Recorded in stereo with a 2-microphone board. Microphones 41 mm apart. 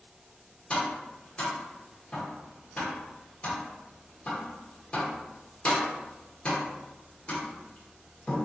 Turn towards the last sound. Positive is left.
turn(degrees=25)  # may be behind; listen again after turning